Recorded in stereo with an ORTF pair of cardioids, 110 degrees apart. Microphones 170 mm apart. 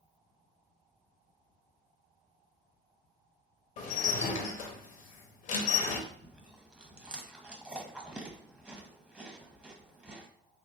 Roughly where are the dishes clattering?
Ahead left.